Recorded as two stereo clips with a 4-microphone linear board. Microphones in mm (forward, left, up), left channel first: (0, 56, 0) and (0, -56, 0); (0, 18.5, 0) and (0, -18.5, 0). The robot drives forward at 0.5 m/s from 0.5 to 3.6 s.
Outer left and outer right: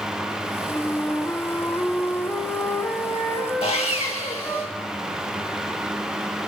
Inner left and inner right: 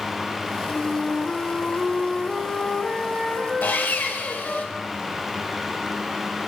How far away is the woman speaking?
No woman speaking in this recording.